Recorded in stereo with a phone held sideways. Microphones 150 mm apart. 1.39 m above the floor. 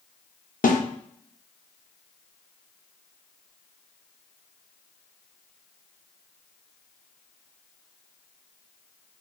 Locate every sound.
0.6 s a snare drum: 65° left (ahead or behind), 0.8 m